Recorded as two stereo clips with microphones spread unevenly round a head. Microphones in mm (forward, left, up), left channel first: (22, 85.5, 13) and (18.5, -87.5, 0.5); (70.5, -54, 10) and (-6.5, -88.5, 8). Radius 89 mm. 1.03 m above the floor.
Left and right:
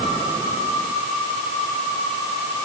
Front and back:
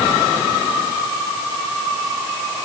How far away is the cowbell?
I don't hear a cowbell.